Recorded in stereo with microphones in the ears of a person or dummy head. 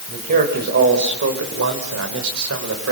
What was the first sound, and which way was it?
A man speaking, 50° right (ahead or behind).